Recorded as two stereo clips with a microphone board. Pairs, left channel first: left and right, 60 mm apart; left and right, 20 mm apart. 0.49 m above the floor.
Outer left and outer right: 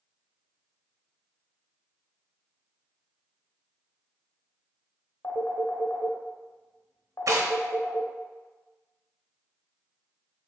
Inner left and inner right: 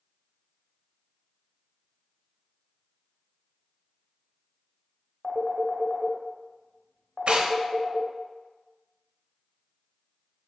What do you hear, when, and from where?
5.2 s a phone ringing: 55° left (ahead or behind), 0.8 m
7.3 s tearing paper: 70° right (ahead or behind), 0.6 m